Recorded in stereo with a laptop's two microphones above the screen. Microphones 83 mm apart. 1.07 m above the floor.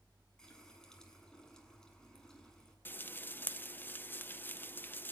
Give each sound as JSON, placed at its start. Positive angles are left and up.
{"t": 0.4, "sound": "a running tap", "side_deg": 5, "distance_m": 8.0}
{"t": 2.9, "sound": "frying", "side_deg": 25, "distance_m": 0.6}